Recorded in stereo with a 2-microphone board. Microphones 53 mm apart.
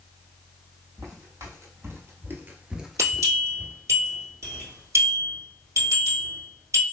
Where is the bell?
70° right (ahead or behind), 1.9 m.